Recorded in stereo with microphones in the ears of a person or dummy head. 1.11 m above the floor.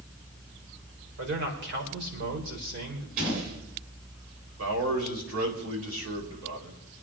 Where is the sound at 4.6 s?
75° right (ahead or behind), 4 m.